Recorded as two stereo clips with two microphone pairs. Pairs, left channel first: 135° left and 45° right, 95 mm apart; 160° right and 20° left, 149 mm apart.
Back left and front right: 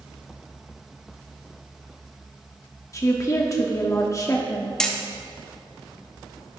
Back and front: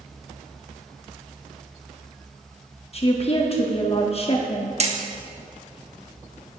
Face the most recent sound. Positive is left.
turn(degrees=55)